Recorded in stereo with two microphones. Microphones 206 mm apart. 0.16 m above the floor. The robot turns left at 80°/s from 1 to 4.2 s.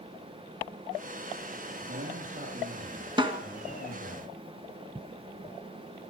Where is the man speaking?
50° right, 4.5 m; by 4.2 s 125° left, 4.5 m.